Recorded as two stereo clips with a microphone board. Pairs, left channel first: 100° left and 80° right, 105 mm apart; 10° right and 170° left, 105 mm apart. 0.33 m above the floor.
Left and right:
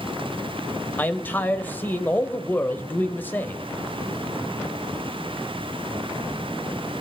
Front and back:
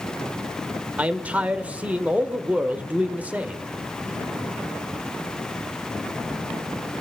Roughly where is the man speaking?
Behind left.